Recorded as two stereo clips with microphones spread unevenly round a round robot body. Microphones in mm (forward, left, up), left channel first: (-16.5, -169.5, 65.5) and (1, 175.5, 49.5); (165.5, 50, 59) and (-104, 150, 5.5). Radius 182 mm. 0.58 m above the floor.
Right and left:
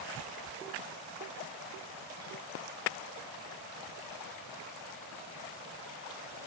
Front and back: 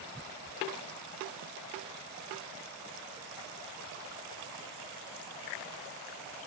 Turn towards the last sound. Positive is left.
No sound to turn to.